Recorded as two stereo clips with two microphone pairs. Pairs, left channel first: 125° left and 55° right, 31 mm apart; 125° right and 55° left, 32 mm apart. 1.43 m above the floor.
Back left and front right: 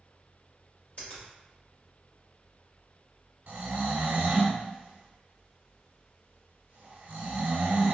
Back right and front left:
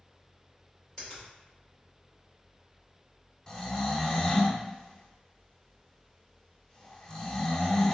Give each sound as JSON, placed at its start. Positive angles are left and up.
{"t": 1.0, "sound": "a finger snap", "azimuth_deg": 170, "distance_m": 1.8}
{"t": 3.5, "sound": "snoring", "azimuth_deg": -65, "distance_m": 0.8}